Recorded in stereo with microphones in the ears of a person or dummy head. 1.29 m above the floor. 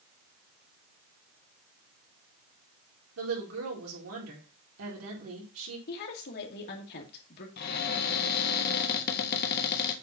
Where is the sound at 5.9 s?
50° left (ahead or behind), 2 m.